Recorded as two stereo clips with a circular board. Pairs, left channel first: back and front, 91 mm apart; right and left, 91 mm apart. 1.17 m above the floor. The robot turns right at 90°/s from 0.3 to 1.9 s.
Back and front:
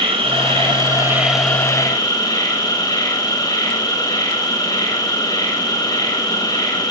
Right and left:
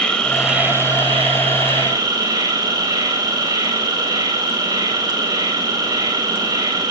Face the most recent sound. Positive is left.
turn(degrees=135)